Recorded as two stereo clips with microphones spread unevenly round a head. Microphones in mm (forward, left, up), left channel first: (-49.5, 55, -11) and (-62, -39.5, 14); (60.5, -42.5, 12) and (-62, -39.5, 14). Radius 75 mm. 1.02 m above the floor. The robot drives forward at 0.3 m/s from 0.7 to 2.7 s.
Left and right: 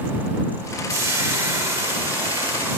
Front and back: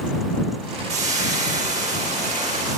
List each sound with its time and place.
0.9 s frying: 160° right, 4 m